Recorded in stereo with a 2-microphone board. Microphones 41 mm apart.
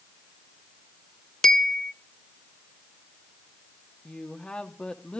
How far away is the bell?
About 0.6 m.